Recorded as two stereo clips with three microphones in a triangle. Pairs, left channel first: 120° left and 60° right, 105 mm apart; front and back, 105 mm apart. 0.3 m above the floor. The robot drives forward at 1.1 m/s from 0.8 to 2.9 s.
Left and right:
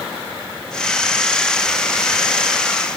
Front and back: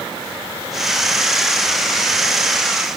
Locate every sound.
Only background noise.